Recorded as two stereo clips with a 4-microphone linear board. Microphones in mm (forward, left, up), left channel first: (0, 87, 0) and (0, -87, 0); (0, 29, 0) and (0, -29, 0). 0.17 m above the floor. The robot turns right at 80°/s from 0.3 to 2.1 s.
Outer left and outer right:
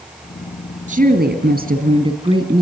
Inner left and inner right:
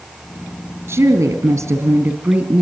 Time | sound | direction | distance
0.9 | a woman speaking | 135° right | 2.5 m